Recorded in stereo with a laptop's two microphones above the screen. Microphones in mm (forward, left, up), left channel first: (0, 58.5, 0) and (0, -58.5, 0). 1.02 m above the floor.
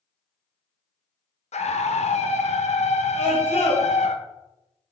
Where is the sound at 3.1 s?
65° left (ahead or behind), 1.4 m.